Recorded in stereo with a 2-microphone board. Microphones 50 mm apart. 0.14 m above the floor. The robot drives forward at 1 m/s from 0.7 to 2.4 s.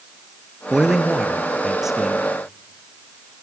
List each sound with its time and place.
0.7 s a man speaking: 10° right (ahead or behind), 1.7 m; by 2.3 s 5° right (ahead or behind), 3 m